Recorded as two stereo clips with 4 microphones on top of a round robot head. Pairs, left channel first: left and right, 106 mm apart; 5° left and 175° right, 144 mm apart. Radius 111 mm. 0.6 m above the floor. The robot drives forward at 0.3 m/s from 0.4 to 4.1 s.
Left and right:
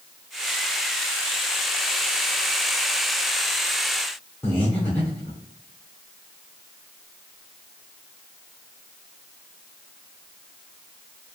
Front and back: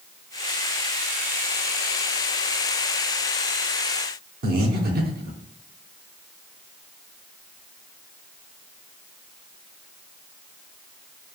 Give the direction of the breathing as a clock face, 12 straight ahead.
6 o'clock.